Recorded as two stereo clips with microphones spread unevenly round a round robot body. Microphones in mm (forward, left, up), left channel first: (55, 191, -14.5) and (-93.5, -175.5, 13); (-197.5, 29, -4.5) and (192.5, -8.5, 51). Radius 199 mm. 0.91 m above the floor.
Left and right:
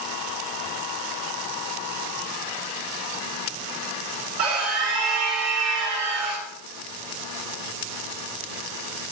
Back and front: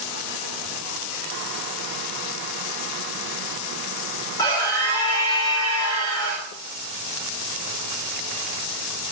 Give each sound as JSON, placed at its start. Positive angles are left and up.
{"t": 4.4, "sound": "a scream", "azimuth_deg": -105, "distance_m": 3.0}